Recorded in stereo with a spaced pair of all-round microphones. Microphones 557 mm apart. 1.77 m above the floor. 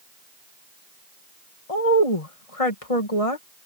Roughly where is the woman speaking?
Left.